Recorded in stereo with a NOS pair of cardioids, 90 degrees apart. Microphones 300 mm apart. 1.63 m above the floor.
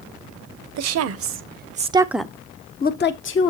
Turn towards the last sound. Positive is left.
turn(degrees=45)